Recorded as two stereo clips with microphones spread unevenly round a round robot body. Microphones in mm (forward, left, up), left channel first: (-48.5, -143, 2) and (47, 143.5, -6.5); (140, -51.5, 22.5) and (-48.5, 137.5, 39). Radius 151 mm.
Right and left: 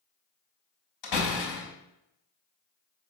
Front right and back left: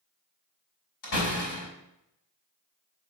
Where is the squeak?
No squeak in this recording.